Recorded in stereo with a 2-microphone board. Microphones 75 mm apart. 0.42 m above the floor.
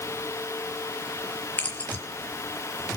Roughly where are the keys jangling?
Left.